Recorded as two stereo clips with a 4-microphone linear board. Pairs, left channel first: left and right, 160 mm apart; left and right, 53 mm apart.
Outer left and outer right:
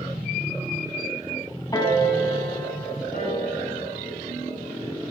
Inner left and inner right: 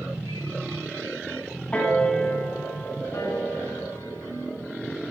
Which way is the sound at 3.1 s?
70° left (ahead or behind).